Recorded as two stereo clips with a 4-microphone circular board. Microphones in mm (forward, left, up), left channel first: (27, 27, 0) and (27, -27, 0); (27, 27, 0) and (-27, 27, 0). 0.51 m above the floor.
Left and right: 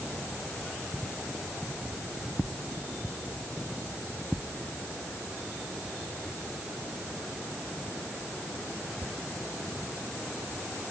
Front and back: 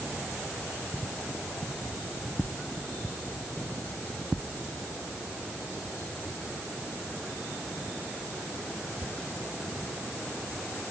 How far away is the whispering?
No whispering in this recording.